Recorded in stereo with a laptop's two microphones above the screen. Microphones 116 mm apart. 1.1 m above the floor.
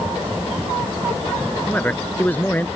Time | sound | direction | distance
1.7 | a man speaking | 15° left (ahead or behind) | ?